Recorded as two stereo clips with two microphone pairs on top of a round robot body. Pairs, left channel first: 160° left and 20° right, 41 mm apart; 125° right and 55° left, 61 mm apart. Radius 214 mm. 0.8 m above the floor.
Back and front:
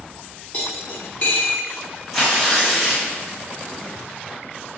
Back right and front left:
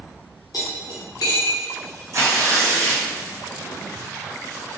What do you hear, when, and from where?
0.5 s cutlery clinking: 150° right, 0.5 m
2.1 s tearing paper: 70° left, 1.4 m